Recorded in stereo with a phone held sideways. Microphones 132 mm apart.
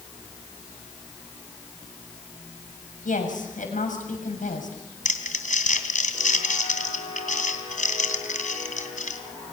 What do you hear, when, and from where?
3.0 s a woman speaking: 80° left, 7 m
5.0 s crumpling: 75° left (ahead or behind), 3 m